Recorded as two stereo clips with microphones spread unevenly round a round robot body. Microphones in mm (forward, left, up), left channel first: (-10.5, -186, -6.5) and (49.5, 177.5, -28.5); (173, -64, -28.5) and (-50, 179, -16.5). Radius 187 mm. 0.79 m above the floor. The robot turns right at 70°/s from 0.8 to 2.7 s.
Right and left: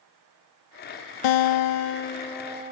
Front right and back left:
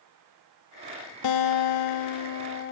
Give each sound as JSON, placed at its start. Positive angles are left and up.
{"t": 1.2, "sound": "a guitar", "azimuth_deg": -90, "distance_m": 0.7}